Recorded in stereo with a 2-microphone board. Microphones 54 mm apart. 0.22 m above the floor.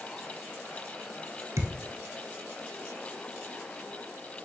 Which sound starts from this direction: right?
A thud, at 1.6 s.